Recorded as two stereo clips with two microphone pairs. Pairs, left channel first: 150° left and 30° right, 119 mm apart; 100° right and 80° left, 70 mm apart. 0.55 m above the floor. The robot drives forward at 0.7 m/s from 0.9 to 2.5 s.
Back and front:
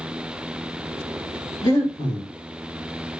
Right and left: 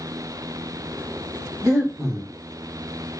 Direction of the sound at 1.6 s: 100° left.